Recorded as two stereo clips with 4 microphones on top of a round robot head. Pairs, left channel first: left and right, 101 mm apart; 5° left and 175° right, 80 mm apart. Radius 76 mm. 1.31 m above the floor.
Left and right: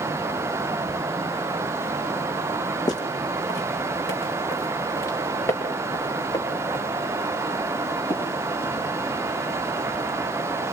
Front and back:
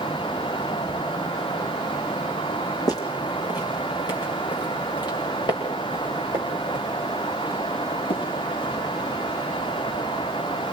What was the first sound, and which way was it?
Footsteps, 40° left.